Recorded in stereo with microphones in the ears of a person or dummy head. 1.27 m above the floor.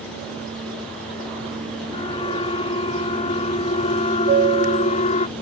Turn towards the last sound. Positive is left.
turn(degrees=-45)  # may be behind; listen again after turning